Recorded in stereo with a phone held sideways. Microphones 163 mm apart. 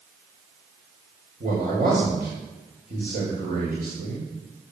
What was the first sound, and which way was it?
A man speaking, 65° right (ahead or behind).